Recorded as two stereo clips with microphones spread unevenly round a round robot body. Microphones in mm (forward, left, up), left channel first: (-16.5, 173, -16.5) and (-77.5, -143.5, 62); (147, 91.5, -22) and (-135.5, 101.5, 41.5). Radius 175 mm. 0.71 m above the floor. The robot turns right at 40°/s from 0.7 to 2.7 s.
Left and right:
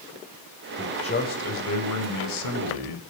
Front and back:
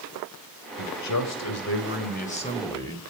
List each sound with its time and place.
0.8 s a man speaking: straight ahead, 3 m; by 3.0 s 75° left, 3 m